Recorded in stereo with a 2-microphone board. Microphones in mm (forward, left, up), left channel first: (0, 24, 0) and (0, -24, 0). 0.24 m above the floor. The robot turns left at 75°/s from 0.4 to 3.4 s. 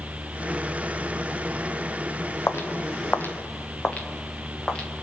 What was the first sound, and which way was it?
Footsteps, 65° left (ahead or behind).